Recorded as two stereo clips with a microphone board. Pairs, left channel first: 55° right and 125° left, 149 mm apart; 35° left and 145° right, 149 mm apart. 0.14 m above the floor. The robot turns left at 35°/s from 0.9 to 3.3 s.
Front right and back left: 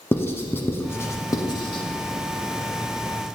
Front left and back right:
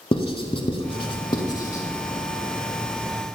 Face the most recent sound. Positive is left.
turn(degrees=-75)